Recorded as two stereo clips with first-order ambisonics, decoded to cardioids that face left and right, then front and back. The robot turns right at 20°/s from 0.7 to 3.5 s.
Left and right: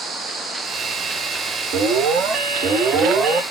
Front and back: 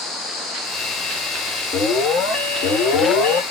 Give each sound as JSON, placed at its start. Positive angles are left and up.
{"t": 1.7, "sound": "an alarm", "azimuth_deg": -60, "distance_m": 1.5}